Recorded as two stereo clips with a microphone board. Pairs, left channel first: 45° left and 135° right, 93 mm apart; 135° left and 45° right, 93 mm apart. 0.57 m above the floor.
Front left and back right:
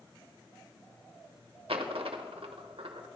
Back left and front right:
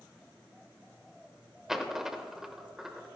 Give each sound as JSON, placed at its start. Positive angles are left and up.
{"t": 1.7, "sound": "a dropped coin", "azimuth_deg": -130, "distance_m": 0.8}